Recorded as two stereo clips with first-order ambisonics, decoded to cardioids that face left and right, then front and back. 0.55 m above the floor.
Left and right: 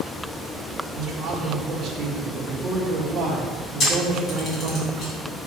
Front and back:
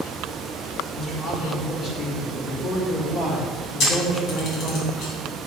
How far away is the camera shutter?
About 2.5 m.